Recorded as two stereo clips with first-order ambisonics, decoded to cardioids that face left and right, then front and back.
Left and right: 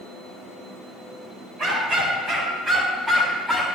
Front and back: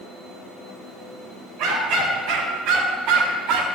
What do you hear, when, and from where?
1.6 s a dog barking: 150° right, 2.5 m; by 3.6 s 175° right, 1.8 m